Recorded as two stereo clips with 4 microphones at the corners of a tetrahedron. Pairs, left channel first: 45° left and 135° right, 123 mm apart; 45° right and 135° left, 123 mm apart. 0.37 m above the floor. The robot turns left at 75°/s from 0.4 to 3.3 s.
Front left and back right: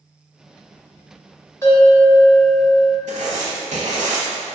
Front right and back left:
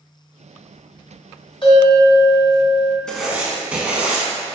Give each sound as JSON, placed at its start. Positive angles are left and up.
{"t": 1.6, "sound": "a bell", "azimuth_deg": -15, "distance_m": 1.3}
{"t": 3.1, "sound": "writing", "azimuth_deg": -125, "distance_m": 0.7}